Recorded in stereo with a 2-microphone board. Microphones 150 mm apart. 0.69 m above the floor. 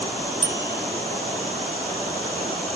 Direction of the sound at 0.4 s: 50° right (ahead or behind).